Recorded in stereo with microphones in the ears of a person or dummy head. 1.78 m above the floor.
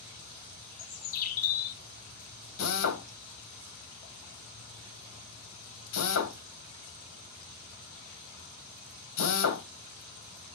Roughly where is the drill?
Left.